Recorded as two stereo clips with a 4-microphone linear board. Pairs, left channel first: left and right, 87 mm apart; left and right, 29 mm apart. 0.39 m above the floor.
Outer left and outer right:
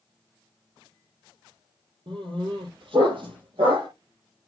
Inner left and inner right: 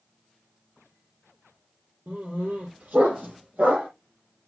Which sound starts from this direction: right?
A dog barking, at 2.1 s.